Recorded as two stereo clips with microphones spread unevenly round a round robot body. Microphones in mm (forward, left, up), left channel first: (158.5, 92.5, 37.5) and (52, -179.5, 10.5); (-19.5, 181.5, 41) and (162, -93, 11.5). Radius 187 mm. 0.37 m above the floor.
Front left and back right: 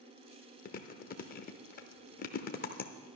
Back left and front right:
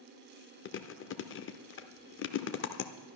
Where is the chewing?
105° left, 0.8 m.